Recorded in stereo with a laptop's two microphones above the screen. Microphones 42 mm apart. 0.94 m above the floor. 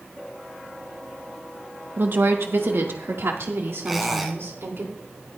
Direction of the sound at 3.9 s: Centre (ahead or behind).